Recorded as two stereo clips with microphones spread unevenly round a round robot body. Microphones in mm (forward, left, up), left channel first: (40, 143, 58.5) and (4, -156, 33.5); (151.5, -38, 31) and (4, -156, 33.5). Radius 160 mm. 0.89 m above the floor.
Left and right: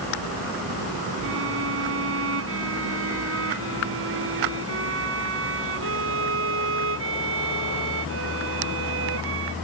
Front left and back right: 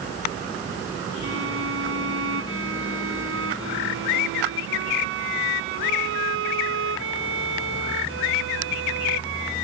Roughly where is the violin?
Behind right.